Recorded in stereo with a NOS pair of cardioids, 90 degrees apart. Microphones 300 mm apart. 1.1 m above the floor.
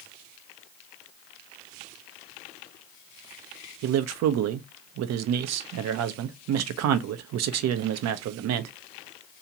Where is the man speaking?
65° right, 0.6 m.